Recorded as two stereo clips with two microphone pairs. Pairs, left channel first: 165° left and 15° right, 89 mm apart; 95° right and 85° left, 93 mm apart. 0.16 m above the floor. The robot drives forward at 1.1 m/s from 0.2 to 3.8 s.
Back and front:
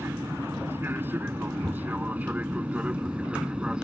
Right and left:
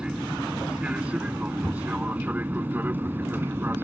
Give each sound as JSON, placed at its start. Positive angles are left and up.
{"t": 0.0, "sound": "an aircraft", "azimuth_deg": 15}